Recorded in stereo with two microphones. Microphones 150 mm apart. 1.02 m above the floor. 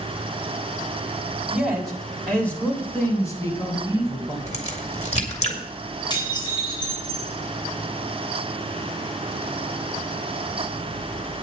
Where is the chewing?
I don't hear chewing.